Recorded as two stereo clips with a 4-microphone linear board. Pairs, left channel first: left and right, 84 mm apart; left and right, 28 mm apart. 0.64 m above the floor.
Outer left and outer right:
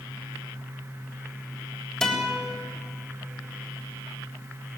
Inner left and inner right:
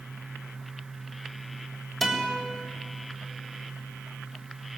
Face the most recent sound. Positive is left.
turn(degrees=5)  # may be behind; listen again after turning